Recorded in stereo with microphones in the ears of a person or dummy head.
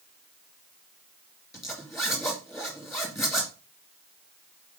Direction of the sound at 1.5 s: 5° right (ahead or behind).